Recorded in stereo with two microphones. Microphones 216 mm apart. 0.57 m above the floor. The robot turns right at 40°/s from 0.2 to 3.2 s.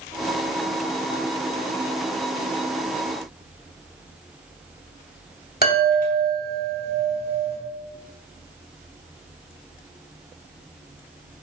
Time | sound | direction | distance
5.6 | a chime | 45° left (ahead or behind) | 3 m